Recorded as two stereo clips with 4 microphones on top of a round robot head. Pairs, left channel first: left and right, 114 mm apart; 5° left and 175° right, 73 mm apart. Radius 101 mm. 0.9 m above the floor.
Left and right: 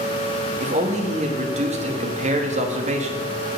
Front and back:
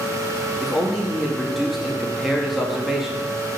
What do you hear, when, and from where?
0.6 s a man speaking: 90° right, 1.4 m